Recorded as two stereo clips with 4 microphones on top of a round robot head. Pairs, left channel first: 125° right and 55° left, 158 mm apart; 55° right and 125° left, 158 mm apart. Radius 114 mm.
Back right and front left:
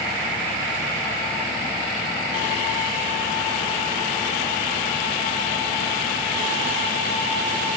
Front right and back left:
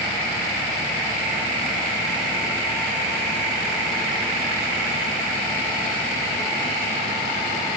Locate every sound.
Only background noise.